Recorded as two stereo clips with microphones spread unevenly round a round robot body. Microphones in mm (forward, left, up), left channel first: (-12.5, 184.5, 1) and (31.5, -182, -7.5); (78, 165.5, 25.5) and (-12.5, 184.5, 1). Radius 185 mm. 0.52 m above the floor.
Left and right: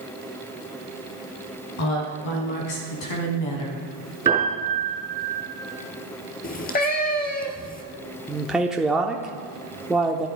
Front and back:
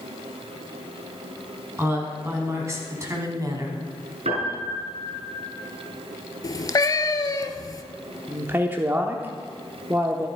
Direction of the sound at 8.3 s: 170° right.